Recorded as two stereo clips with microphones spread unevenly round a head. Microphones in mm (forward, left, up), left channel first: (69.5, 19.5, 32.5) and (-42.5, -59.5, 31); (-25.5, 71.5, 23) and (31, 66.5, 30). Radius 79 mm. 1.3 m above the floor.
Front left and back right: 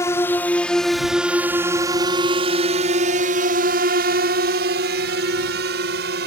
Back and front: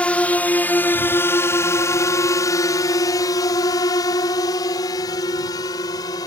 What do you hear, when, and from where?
0.0 s a drone: 110° left; by 6.3 s 150° right